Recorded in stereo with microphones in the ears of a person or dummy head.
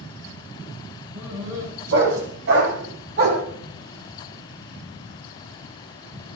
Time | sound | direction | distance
1.1 | a dog barking | 70° right (ahead or behind) | 8 m